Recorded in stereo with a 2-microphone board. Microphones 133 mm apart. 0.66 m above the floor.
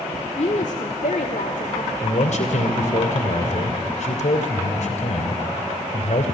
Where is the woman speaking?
55° left (ahead or behind), 1.5 m; by 1.9 s 75° left (ahead or behind), 2 m.